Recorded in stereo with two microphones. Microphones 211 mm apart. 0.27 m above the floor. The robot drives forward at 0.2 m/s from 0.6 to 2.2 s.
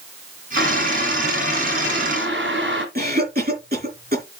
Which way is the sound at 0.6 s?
60° right (ahead or behind).